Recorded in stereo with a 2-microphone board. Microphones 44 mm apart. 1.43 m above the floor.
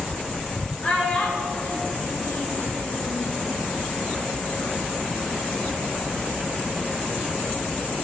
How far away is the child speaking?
About 2 m.